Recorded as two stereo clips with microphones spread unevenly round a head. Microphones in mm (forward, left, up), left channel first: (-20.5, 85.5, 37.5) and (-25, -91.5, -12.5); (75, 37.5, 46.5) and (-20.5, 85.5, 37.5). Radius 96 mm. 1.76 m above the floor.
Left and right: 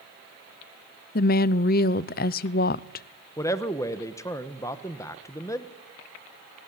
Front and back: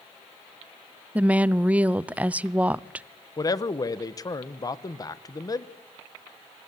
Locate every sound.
1.1 s a woman speaking: 75° left, 0.6 m
3.4 s a man speaking: 20° left, 1.2 m